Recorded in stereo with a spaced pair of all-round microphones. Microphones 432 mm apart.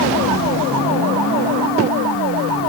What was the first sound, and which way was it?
Only background noise.